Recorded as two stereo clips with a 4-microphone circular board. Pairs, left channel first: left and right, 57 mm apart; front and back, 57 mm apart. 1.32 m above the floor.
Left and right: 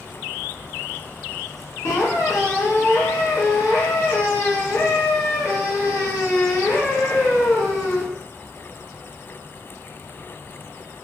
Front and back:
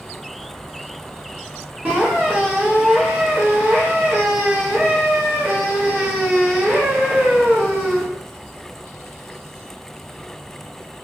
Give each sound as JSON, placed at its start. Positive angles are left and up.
{"t": 1.9, "sound": "a squeak", "azimuth_deg": 120, "distance_m": 1.1}